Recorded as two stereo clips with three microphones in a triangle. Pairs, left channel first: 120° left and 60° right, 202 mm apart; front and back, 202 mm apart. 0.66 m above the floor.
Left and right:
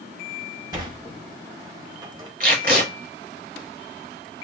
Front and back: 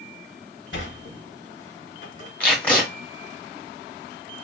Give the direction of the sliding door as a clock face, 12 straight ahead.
12 o'clock.